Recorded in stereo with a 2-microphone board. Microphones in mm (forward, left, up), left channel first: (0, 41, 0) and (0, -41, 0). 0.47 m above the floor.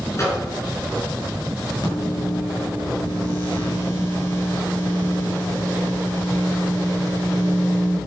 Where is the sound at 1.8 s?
60° left (ahead or behind), 6.5 m.